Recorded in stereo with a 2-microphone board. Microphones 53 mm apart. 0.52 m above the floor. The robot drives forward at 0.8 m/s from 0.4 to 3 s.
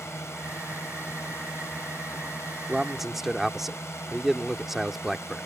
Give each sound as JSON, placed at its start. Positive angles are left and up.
{"t": 0.0, "sound": "a drone", "side_deg": 65}
{"t": 2.7, "sound": "a man speaking", "side_deg": -5}